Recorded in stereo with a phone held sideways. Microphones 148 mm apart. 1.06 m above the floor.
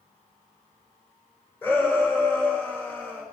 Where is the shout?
15° left (ahead or behind), 4.5 m.